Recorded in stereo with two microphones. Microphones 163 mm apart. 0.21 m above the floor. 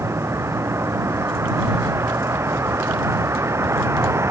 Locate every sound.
0.0 s a vehicle: 15° right (ahead or behind)